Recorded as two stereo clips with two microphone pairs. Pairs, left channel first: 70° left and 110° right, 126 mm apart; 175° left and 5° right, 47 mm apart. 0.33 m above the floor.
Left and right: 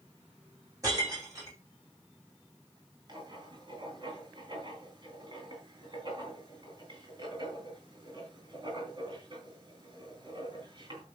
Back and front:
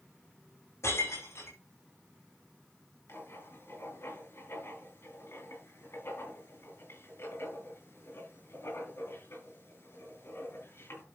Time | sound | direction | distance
0.8 | breaking glass | 175° right | 8.5 m
3.1 | writing | 160° right | 5.5 m